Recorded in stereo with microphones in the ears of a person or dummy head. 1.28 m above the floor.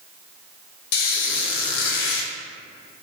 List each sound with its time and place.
0.9 s a squeak: 55° left (ahead or behind), 0.7 m